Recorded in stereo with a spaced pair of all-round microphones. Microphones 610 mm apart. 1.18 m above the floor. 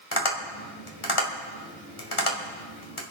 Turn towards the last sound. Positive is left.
turn(degrees=55)  # may be behind; listen again after turning